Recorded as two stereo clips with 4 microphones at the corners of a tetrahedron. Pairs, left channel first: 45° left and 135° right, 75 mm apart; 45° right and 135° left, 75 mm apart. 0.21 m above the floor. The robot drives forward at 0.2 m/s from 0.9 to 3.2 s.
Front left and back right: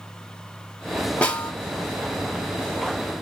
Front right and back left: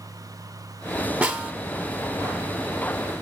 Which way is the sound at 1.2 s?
95° left.